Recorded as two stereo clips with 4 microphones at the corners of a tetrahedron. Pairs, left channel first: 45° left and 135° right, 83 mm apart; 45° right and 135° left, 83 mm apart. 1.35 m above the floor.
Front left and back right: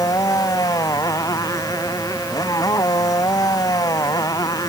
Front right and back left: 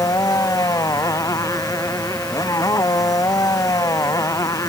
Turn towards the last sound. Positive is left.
turn(degrees=0)